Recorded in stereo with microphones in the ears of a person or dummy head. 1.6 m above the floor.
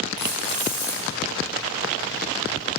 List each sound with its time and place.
0.2 s keys jangling: 40° left (ahead or behind), 1.3 m